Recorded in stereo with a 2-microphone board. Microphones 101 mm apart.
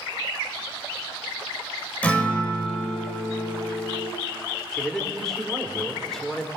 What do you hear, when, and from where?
2.0 s a guitar: 15° left (ahead or behind), 3 m
4.7 s a man speaking: 5° left (ahead or behind), 3.5 m